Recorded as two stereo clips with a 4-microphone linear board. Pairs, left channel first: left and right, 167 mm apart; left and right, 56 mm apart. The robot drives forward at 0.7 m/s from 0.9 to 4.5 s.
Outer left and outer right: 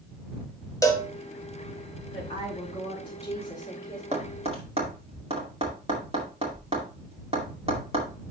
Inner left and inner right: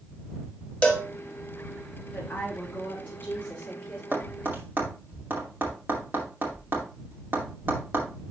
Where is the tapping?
40° right (ahead or behind), 2 m; by 8.1 s 35° right (ahead or behind), 2.5 m.